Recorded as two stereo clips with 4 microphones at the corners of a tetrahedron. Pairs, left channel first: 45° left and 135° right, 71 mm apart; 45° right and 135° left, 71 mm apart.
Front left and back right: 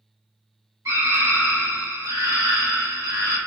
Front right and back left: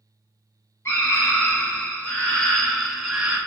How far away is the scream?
About 1.8 m.